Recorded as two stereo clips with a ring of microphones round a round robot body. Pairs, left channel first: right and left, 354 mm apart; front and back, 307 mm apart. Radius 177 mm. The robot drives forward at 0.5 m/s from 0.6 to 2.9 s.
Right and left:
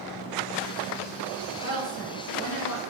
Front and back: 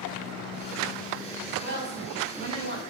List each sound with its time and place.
1.6 s a woman speaking: 105° right, 1.4 m; by 2.8 s 140° right, 1.6 m